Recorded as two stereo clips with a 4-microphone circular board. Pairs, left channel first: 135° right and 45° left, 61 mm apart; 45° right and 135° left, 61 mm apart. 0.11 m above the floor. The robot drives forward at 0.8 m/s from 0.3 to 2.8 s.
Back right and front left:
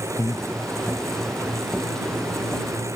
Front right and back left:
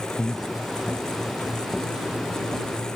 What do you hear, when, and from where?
0.2 s breathing: 120° right, 0.5 m; by 0.5 s 130° right, 0.6 m